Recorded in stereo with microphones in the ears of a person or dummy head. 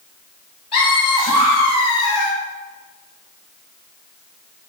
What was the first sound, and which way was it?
Laughter, 35° left (ahead or behind).